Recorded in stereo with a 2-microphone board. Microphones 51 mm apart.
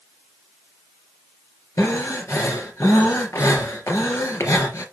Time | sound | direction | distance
1.8 | breathing | 65° left (ahead or behind) | 3 m